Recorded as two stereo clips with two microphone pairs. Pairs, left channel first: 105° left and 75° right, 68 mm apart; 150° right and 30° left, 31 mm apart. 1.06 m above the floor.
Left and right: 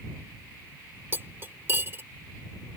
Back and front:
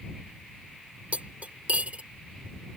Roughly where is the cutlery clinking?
Ahead.